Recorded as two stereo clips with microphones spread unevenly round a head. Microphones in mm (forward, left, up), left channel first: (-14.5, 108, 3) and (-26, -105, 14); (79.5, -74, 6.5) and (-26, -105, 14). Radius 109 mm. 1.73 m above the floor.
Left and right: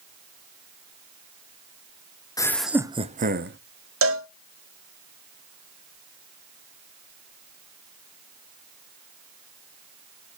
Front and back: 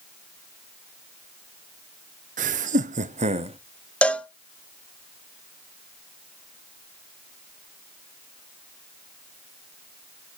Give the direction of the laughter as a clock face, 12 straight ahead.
7 o'clock.